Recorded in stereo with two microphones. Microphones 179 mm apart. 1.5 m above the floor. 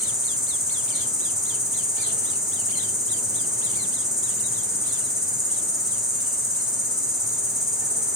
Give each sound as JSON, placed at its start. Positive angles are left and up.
{"t": 0.0, "sound": "an insect", "side_deg": -5, "distance_m": 1.8}